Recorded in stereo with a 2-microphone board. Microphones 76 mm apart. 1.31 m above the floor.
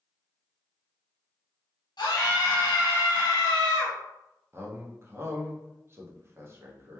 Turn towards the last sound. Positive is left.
turn(degrees=-35)  # may be behind; listen again after turning